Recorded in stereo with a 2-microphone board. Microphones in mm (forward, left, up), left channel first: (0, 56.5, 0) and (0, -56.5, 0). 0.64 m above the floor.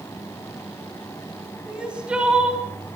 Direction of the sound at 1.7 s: 10° right (ahead or behind).